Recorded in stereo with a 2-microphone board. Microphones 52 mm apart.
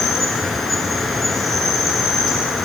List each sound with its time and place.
0.0 s an insect: centre (ahead or behind), 0.9 m